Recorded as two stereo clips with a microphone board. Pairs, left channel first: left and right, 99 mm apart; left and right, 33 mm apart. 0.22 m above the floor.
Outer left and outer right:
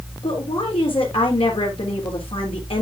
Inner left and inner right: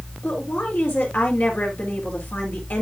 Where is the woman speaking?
65° left (ahead or behind), 4 m.